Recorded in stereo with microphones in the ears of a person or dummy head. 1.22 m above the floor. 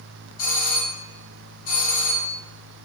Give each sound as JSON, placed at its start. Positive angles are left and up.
{"t": 0.4, "sound": "a doorbell", "side_deg": 40, "distance_m": 1.4}